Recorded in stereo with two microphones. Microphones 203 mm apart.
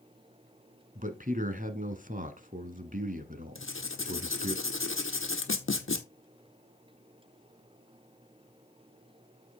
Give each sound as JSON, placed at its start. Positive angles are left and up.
{"t": 0.9, "sound": "a man speaking", "side_deg": -40, "distance_m": 1.3}
{"t": 3.5, "sound": "writing", "side_deg": 80, "distance_m": 1.2}